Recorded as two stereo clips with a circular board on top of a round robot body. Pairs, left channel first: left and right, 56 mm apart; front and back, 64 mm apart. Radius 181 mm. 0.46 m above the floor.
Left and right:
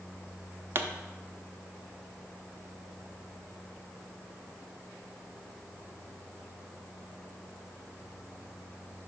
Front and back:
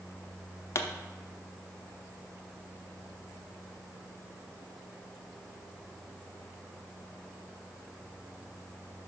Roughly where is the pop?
Ahead right.